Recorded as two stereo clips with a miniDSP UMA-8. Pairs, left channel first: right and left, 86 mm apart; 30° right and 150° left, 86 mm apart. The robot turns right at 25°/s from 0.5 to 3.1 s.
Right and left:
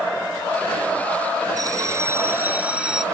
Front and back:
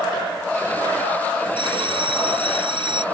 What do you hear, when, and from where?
1.6 s a bell: 135° left; by 3.0 s 175° left